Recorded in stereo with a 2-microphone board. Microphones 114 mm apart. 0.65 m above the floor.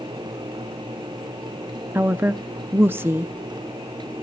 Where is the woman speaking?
20° right (ahead or behind), 0.5 m.